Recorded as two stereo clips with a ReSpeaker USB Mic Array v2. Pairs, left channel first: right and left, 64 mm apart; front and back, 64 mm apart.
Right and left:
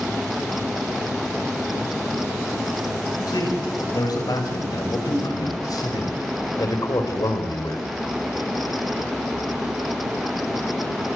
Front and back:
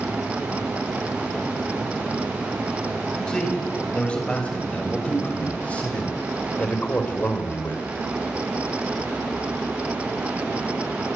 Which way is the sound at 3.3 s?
75° right.